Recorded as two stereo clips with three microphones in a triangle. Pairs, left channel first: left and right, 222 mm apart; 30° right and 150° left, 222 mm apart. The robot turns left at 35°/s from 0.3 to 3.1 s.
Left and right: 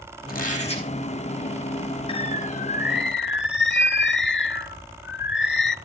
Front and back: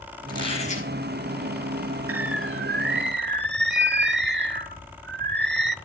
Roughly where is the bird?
Behind left.